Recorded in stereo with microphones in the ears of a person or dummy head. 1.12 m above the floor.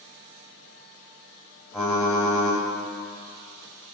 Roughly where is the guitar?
No guitar in this recording.